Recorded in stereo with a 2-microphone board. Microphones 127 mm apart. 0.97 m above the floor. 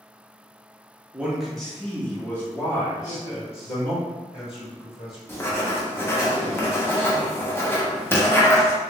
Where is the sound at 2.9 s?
50° left (ahead or behind), 1.6 m.